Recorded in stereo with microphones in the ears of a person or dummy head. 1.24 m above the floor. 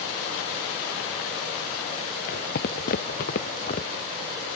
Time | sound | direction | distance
2.3 | footsteps | 65° left (ahead or behind) | ?